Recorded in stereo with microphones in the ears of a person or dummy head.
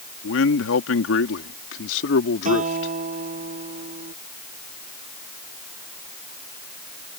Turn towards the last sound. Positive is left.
turn(degrees=-40)  # may be behind; listen again after turning